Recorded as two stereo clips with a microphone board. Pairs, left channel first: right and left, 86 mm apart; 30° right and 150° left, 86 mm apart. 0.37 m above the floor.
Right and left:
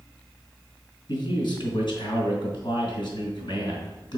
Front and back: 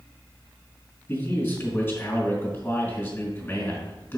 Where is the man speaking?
95° right, 2.5 m.